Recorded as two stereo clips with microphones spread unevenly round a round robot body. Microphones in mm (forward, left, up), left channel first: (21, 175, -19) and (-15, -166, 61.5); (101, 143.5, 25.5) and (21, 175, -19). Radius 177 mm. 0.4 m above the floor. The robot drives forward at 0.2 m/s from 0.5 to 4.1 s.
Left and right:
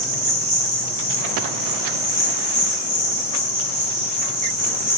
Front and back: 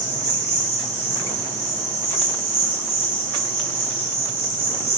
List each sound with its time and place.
0.0 s an insect: 165° right, 1.9 m; by 5.0 s 170° right, 2.5 m